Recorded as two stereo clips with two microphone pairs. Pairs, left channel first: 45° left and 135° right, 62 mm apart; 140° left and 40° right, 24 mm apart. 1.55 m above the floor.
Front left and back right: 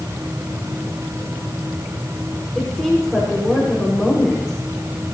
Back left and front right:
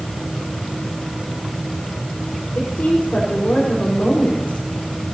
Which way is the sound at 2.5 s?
140° left.